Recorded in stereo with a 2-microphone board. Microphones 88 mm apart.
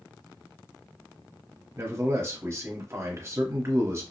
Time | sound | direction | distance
1.8 | a man speaking | 30° right (ahead or behind) | 1.0 m